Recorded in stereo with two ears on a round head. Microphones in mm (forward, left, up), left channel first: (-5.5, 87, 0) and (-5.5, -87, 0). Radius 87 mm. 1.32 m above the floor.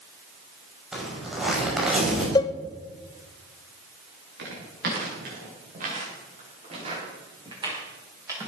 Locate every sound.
0.9 s a zipper: 5° right (ahead or behind), 6 m
2.4 s a cowbell: 20° left (ahead or behind), 0.5 m
4.4 s footsteps: 60° right (ahead or behind), 8 m; by 8.5 s 15° right (ahead or behind), 8 m